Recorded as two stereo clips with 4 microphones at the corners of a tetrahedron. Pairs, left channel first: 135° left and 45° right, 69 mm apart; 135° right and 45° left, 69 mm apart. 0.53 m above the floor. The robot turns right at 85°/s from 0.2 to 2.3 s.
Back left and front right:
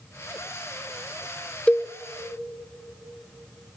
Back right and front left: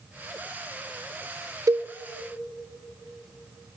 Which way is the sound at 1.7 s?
65° left.